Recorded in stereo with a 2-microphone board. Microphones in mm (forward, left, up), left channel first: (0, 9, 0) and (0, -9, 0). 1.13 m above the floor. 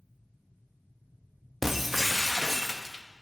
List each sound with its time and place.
1.6 s breaking glass: 20° right (ahead or behind), 0.7 m